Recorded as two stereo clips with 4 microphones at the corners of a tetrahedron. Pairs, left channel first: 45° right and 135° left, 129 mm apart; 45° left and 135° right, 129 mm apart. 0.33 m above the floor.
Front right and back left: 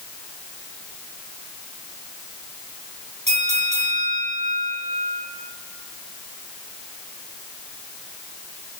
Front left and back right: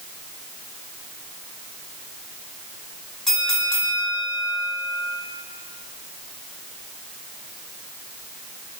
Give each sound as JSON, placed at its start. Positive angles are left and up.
{"t": 3.3, "sound": "a bell", "azimuth_deg": 130, "distance_m": 2.5}